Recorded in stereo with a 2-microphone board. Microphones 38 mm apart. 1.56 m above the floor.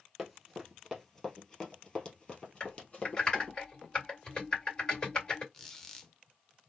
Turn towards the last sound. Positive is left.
turn(degrees=10)  # may be behind; listen again after turning